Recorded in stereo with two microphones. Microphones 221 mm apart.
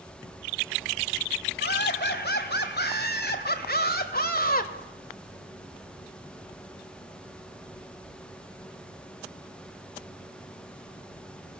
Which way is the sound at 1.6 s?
55° left (ahead or behind).